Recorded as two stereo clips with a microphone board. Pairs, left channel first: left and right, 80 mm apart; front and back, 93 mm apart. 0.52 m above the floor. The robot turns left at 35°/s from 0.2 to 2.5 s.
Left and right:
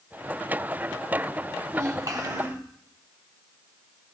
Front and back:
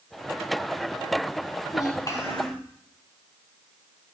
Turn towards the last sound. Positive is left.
turn(degrees=-65)